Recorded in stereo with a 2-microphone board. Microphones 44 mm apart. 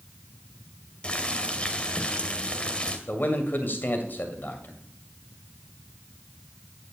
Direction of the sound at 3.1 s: 45° left (ahead or behind).